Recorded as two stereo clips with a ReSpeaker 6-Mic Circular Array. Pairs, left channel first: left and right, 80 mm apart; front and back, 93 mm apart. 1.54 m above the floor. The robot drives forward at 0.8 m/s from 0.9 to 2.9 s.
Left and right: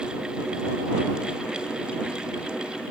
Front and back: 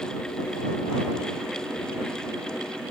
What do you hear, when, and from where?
Only background noise.